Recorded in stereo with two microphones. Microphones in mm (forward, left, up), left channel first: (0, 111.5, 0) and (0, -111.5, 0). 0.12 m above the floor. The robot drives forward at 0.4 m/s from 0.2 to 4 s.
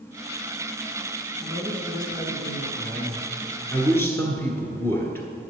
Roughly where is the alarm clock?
I don't hear an alarm clock.